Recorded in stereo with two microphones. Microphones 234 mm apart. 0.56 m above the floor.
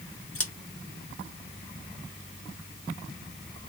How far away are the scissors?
About 0.9 m.